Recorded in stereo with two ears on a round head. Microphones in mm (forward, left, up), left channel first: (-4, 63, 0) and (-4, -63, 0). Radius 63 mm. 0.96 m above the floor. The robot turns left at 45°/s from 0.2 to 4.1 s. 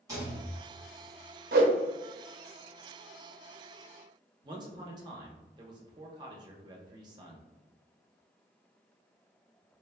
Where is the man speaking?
30° right (ahead or behind), 0.7 m.